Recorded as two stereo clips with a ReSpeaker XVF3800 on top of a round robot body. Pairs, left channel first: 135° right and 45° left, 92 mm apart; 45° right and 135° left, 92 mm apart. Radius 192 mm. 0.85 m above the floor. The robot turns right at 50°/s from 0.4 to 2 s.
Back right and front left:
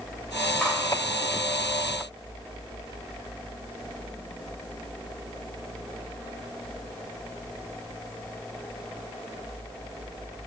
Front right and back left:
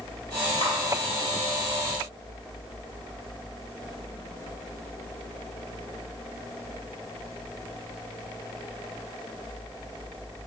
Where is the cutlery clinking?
35° right, 3 m; by 0.8 s 30° right, 3 m.